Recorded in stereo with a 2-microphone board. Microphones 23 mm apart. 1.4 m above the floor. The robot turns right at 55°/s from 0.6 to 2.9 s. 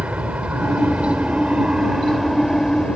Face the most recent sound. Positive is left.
turn(degrees=35)  # may be behind; listen again after turning